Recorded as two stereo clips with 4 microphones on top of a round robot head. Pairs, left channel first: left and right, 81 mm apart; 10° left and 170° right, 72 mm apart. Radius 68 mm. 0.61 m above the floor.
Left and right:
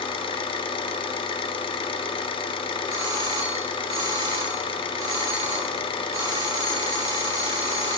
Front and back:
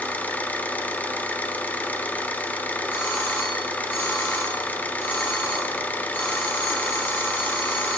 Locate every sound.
0.0 s an engine running: 75° left, 0.8 m
2.9 s a doorbell: 60° right, 2 m